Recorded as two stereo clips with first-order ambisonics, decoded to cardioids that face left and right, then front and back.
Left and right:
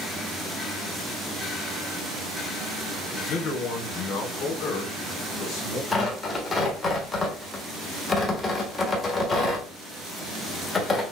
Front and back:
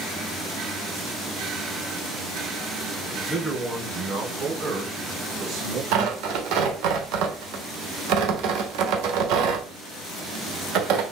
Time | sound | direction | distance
3.1 | a man speaking | 85° left | 1.0 m
5.9 | tearing paper | 165° left | 1.2 m